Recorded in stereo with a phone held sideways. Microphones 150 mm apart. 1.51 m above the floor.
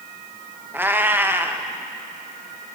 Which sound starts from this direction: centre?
A cat meowing, at 0.7 s.